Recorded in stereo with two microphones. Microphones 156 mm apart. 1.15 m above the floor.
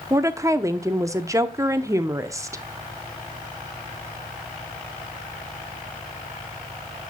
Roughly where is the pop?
No pop in this recording.